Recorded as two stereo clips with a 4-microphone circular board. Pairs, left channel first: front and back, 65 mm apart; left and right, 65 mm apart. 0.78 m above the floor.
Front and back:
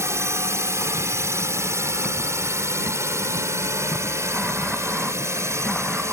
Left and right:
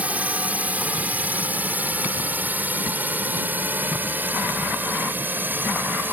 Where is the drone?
150° right; by 6.1 s 145° right.